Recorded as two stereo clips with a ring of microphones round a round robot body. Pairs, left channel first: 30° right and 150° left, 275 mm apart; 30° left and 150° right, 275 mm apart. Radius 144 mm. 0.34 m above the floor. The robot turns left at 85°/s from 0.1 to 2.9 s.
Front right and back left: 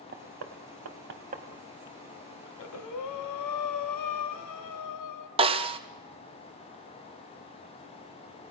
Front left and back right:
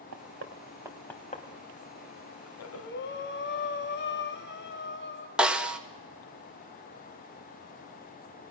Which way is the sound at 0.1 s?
165° right.